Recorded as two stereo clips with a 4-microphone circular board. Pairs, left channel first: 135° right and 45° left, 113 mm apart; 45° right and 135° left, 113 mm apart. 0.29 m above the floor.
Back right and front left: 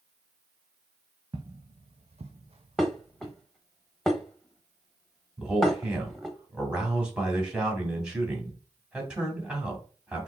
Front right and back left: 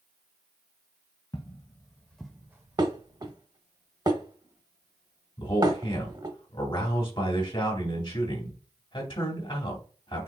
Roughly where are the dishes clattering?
Behind left.